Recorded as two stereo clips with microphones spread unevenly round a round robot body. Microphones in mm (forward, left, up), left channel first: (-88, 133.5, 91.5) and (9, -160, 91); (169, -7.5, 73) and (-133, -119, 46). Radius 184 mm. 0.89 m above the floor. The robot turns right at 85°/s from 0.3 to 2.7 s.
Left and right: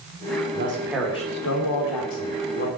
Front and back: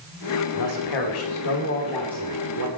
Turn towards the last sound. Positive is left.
turn(degrees=165)